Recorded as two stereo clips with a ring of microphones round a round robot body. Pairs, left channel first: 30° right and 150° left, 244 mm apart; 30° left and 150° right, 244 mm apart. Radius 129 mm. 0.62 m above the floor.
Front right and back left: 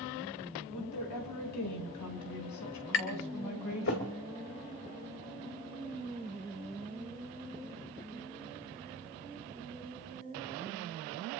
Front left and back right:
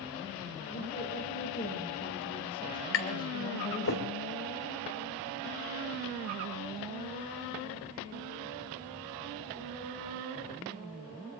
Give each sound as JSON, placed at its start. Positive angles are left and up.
{"t": 0.7, "sound": "a woman speaking", "azimuth_deg": -25, "distance_m": 4.5}
{"t": 2.9, "sound": "tapping", "azimuth_deg": 0, "distance_m": 3.0}